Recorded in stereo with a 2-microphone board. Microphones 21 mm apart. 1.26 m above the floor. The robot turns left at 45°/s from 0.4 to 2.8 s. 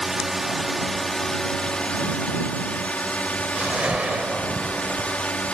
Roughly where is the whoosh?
Right.